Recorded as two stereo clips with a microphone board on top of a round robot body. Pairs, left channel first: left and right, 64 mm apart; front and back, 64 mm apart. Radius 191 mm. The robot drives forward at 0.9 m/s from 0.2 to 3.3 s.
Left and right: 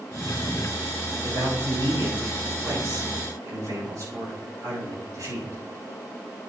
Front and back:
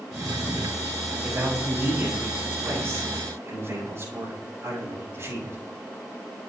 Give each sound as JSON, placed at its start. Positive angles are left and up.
{"t": 1.2, "sound": "a man speaking", "azimuth_deg": -115, "distance_m": 6.0}